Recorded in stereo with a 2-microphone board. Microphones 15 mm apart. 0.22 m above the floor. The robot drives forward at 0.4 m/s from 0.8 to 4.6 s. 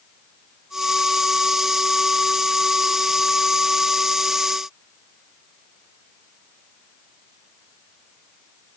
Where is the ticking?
I don't hear ticking.